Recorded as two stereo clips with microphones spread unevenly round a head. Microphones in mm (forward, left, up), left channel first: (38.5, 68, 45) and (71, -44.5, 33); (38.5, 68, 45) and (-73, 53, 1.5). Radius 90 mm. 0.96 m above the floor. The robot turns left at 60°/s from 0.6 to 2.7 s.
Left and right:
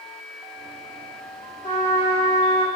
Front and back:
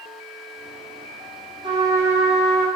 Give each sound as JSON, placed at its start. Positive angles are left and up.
{"t": 1.6, "sound": "a trumpet", "azimuth_deg": 135, "distance_m": 0.8}